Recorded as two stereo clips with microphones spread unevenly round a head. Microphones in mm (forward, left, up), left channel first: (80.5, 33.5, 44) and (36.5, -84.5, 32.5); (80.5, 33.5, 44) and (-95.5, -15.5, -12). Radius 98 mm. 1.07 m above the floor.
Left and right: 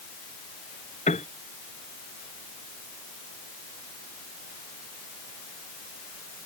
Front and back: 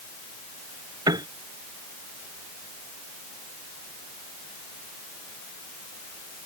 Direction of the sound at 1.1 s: 125° left.